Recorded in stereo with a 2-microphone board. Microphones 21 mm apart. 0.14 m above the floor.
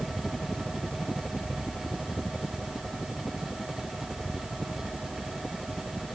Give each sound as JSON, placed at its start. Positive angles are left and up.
{"t": 0.0, "sound": "a helicopter", "side_deg": 50}